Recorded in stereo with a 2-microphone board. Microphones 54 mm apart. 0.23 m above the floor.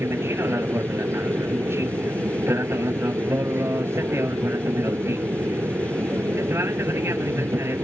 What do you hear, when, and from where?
0.0 s an aircraft: 55° right (ahead or behind)